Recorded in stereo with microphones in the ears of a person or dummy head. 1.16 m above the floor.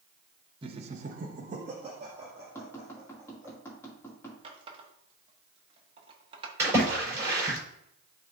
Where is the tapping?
15° left (ahead or behind), 2.5 m.